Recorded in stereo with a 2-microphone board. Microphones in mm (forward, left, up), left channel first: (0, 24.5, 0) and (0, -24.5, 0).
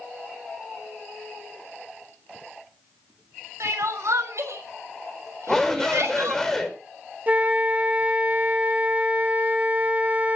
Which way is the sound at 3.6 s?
85° right.